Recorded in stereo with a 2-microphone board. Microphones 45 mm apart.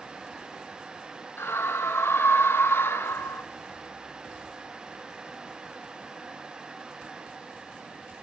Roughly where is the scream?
Left.